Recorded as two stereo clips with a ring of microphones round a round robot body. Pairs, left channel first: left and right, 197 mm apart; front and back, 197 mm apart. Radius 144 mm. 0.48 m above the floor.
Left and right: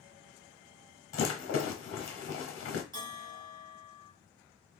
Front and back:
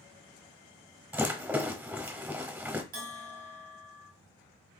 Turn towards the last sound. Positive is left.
turn(degrees=-150)